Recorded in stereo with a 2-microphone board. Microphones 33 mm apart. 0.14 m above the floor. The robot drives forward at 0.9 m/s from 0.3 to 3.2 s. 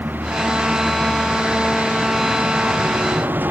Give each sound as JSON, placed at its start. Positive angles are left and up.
{"t": 0.0, "sound": "a vehicle", "side_deg": -65}